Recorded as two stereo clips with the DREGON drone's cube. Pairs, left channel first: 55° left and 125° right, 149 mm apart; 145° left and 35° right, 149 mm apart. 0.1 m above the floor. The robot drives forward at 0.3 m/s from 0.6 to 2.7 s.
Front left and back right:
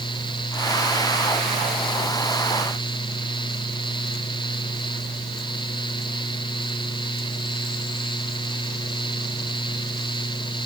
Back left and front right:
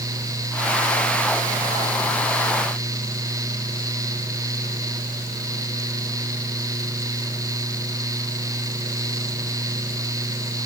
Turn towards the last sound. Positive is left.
No sound to turn to.